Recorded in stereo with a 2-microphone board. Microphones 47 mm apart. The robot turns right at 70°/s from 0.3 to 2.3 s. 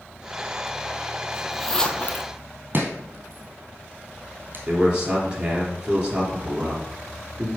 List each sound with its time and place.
1.3 s a zipper: 20° right (ahead or behind), 0.9 m; by 2.3 s 45° left (ahead or behind), 0.9 m
2.7 s chopping: 45° right (ahead or behind), 2.5 m
4.7 s a man speaking: 20° right (ahead or behind), 3.5 m